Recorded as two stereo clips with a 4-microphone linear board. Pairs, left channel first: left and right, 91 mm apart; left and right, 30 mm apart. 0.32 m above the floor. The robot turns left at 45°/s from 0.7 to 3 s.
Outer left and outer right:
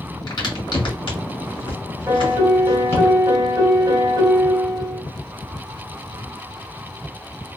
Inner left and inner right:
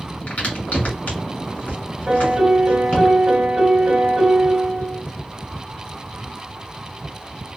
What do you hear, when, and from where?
0.3 s a crack: 50° left (ahead or behind), 1.7 m; by 3.1 s 25° left (ahead or behind), 1.7 m
2.1 s a piano: 45° right, 1.5 m; by 5.0 s 85° right, 1.5 m